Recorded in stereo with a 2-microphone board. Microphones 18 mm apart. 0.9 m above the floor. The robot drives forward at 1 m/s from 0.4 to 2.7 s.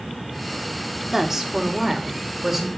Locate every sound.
1.1 s a woman speaking: 15° right (ahead or behind), 1.8 m; by 2.7 s 10° right (ahead or behind), 3.5 m